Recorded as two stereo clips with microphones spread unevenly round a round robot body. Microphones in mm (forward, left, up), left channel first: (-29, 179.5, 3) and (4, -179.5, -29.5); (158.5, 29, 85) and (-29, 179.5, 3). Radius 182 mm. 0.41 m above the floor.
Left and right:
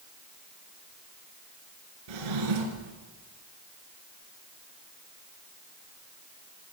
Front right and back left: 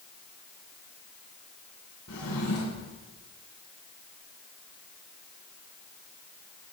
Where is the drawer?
85° right, 3 m.